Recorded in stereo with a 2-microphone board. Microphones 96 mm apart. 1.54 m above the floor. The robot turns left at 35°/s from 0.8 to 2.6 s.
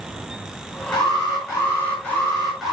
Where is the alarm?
60° left, 6 m; by 2.7 s straight ahead, 6 m.